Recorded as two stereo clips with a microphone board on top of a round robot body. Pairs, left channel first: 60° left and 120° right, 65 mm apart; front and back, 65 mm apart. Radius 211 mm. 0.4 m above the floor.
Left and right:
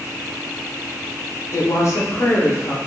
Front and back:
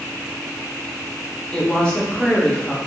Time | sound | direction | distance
1.5 | a woman speaking | 70° left | 1.7 m